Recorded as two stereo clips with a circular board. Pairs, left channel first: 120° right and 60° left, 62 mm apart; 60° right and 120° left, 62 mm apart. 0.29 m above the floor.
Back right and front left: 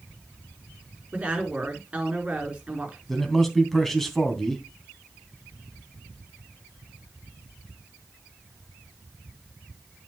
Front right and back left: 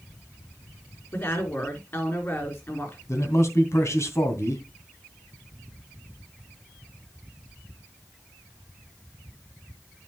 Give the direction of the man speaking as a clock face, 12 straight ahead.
1 o'clock.